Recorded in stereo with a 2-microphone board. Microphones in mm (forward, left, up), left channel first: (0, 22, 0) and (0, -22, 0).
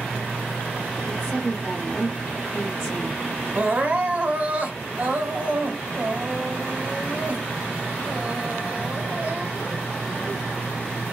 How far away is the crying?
About 0.8 m.